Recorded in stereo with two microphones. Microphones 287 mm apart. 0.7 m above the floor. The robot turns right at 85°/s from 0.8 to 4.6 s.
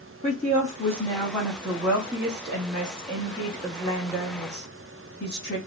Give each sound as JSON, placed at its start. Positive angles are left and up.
{"t": 0.2, "sound": "a woman speaking", "azimuth_deg": 135, "distance_m": 1.1}